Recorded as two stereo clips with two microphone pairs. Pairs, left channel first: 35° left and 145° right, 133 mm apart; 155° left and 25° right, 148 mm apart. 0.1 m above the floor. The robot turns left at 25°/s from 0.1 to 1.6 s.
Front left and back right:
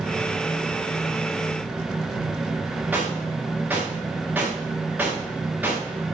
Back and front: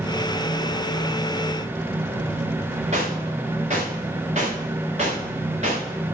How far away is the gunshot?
About 5.5 m.